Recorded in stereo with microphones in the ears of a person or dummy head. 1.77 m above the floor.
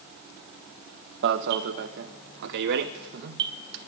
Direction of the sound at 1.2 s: 60° right (ahead or behind).